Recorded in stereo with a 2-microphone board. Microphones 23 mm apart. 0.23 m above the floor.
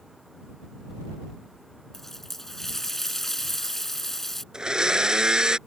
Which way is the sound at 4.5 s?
30° right (ahead or behind).